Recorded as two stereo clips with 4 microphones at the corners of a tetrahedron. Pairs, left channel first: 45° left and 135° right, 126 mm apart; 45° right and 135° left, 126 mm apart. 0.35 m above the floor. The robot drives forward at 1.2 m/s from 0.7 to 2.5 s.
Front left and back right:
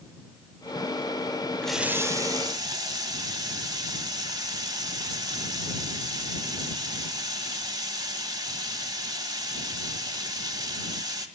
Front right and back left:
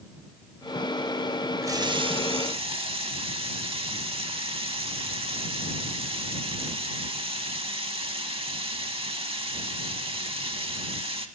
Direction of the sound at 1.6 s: 115° left.